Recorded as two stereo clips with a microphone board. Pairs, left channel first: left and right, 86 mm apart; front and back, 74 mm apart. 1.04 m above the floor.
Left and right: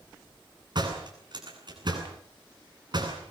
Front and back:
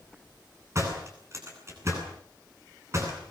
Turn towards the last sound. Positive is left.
turn(degrees=-130)